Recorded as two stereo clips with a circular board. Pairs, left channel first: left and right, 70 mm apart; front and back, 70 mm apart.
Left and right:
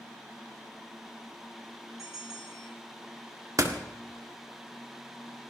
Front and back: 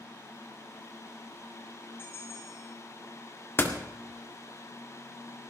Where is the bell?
55° right, 2.5 m.